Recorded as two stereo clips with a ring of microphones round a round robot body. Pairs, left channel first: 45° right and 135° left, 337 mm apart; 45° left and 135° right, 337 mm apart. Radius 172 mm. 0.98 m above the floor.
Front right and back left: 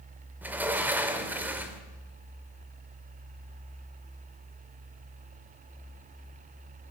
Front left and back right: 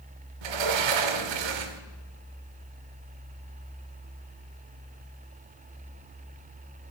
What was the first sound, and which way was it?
A sliding door, 140° right.